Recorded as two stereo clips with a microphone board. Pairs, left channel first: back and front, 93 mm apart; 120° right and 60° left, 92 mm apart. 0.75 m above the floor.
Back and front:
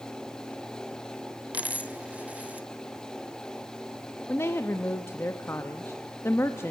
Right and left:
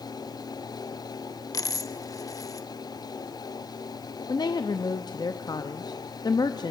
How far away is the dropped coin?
About 0.7 m.